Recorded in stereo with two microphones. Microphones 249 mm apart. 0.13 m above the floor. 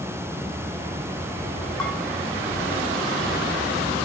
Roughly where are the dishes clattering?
Centre.